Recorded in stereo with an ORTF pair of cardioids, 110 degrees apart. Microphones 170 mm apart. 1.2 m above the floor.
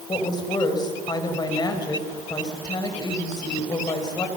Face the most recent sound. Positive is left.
turn(degrees=25)